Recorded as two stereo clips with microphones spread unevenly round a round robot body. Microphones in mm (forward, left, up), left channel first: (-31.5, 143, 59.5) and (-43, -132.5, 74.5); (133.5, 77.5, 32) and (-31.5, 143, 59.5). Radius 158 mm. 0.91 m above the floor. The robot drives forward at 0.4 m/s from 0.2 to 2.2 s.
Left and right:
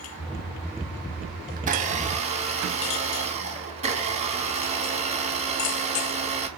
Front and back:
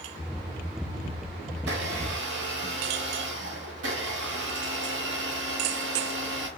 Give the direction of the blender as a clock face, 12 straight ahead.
5 o'clock.